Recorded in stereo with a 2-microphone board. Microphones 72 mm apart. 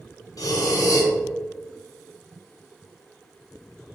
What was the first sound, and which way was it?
Breathing, 55° left (ahead or behind).